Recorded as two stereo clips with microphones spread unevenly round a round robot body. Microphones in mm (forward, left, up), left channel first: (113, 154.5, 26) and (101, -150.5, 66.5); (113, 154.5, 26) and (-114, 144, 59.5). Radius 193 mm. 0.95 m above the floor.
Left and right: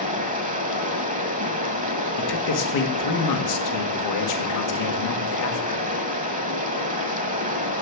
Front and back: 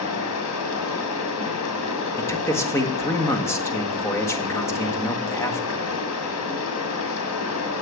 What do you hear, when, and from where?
0.0 s running water: 30° right, 1.6 m
2.2 s a man speaking: 80° left, 1.7 m